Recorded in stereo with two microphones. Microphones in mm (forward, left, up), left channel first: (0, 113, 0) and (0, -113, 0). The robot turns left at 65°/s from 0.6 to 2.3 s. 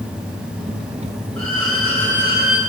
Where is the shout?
I don't hear a shout.